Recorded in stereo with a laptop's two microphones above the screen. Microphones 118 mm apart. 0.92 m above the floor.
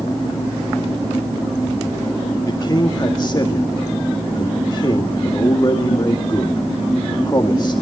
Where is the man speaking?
35° left (ahead or behind), 2 m.